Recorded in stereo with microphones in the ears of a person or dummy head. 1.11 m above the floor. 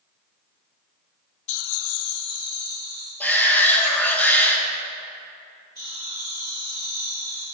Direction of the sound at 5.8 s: 20° left (ahead or behind).